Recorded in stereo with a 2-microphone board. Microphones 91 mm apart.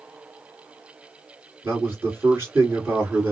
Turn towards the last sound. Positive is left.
turn(degrees=-25)  # may be behind; listen again after turning